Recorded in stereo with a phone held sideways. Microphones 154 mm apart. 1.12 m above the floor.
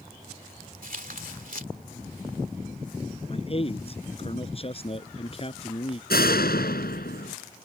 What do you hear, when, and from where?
0.8 s tearing paper: 60° right (ahead or behind)
3.3 s a man speaking: 40° left (ahead or behind)
6.1 s a door slam: 80° left